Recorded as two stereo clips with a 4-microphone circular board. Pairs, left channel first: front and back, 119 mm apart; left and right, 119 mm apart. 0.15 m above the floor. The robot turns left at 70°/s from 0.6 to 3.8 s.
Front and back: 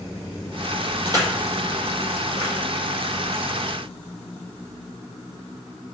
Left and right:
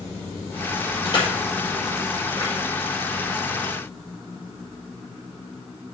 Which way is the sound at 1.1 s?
135° left.